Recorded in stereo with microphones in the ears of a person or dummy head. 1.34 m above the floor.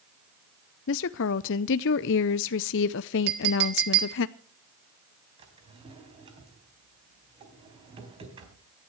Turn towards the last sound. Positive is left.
turn(degrees=-30)  # may be behind; listen again after turning